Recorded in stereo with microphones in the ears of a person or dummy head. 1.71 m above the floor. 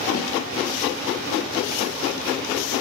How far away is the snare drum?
About 2.5 m.